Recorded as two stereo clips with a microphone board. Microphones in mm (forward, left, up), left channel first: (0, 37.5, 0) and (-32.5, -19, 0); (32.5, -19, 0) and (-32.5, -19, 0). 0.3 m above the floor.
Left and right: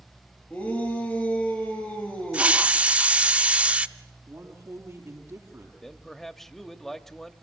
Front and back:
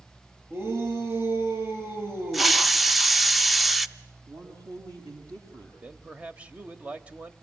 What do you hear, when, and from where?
0.5 s a shout: 125° left, 8.5 m
2.3 s a hiss: 95° right, 0.5 m
4.3 s a man speaking: 165° right, 7 m
5.8 s a man speaking: 140° left, 1.0 m